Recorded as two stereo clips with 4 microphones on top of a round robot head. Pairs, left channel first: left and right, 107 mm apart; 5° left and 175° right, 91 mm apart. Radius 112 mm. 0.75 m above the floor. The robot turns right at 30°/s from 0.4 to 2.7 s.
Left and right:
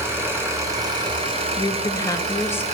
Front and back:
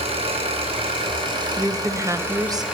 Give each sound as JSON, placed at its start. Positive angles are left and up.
{"t": 0.0, "sound": "an engine running", "azimuth_deg": -160, "distance_m": 2.5}
{"t": 1.6, "sound": "a woman speaking", "azimuth_deg": 120, "distance_m": 1.1}